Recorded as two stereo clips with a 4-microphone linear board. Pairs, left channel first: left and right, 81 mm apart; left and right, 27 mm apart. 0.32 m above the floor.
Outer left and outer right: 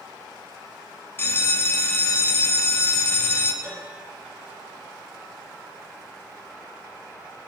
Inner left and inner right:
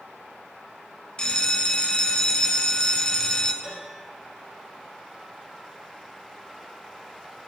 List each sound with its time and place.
1.2 s a bell: 30° left (ahead or behind), 0.7 m
3.6 s a piano: 45° right (ahead or behind), 3.5 m